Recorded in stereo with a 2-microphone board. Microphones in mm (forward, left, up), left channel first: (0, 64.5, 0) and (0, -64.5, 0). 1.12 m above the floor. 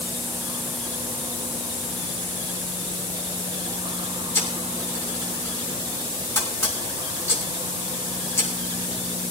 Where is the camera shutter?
20° left (ahead or behind), 4.5 m.